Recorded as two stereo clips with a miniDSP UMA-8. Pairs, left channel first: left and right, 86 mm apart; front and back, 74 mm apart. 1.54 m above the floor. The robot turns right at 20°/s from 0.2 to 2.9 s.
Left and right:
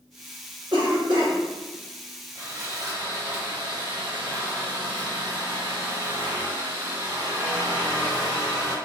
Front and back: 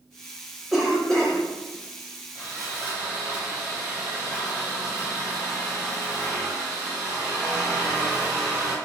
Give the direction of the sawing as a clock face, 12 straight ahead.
4 o'clock.